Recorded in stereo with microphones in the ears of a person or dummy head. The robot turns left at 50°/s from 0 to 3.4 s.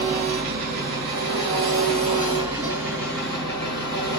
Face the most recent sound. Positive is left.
turn(degrees=155)